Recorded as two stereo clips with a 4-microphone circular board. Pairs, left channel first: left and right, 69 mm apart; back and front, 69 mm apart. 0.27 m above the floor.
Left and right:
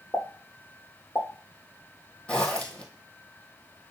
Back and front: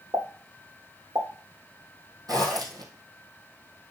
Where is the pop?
30° left, 3 m.